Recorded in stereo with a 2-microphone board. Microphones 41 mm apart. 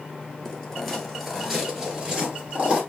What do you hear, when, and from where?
0.5 s footsteps: 15° left (ahead or behind), 1.4 m; by 2.8 s 30° right (ahead or behind), 1.5 m